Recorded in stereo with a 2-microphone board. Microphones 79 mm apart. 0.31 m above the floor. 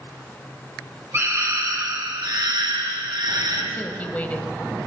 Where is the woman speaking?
20° left (ahead or behind), 1.3 m.